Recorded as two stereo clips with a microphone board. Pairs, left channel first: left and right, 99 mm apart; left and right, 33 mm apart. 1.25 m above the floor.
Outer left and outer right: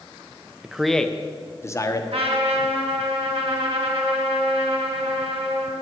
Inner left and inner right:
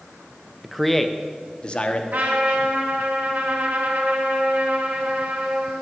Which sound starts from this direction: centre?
A man speaking, at 0.6 s.